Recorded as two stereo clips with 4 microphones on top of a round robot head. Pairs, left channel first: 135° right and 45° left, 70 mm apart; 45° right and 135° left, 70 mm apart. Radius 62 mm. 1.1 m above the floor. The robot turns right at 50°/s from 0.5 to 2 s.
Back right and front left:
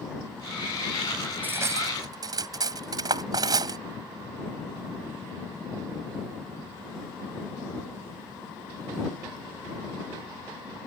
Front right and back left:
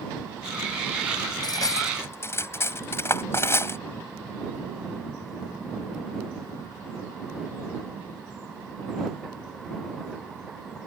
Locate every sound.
1.4 s cutlery clinking: 20° right; by 3.8 s 10° left